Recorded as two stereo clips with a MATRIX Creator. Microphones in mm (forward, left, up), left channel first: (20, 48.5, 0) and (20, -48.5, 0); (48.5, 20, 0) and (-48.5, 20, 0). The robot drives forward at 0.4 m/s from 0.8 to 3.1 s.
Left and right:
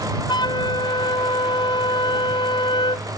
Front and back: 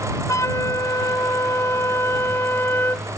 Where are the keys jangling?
I don't hear keys jangling.